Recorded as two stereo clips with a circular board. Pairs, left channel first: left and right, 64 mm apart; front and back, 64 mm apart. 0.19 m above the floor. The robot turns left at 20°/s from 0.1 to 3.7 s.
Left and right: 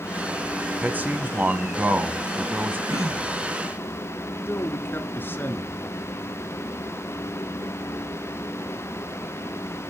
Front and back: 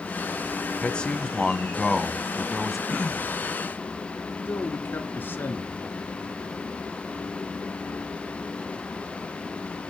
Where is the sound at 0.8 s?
55° right, 1.1 m; by 2.8 s 95° right, 1.1 m.